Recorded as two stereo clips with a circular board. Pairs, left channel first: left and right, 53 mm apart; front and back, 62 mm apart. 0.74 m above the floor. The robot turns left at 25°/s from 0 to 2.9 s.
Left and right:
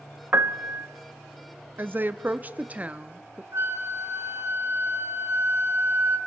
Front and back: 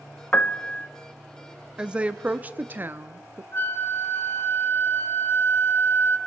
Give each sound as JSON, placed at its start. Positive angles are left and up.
{"t": 0.3, "sound": "a piano", "azimuth_deg": -55, "distance_m": 0.8}
{"t": 1.8, "sound": "a woman speaking", "azimuth_deg": -110, "distance_m": 0.9}
{"t": 3.5, "sound": "a flute", "azimuth_deg": -55, "distance_m": 1.3}